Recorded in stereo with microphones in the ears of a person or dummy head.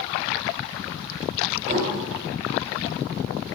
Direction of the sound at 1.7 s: 45° right (ahead or behind).